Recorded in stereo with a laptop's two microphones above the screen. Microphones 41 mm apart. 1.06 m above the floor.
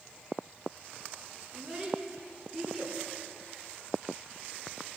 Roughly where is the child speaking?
Centre.